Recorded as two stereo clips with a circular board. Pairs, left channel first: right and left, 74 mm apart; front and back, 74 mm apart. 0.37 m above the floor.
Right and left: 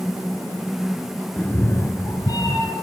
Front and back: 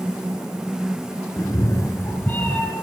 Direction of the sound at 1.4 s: 25° right.